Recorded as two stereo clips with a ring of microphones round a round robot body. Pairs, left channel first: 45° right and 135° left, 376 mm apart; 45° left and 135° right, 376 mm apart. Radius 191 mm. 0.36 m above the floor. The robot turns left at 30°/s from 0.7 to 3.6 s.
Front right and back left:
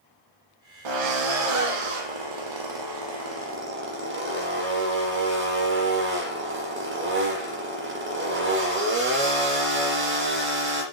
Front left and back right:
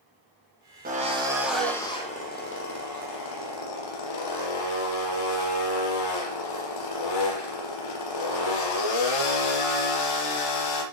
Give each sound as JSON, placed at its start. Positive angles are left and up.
{"t": 0.8, "sound": "a drill", "azimuth_deg": 155, "distance_m": 8.5}